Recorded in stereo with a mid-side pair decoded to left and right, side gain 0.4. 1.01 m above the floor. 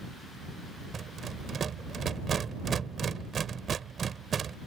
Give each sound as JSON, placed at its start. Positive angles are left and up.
{"t": 0.9, "sound": "a rattle", "azimuth_deg": -55}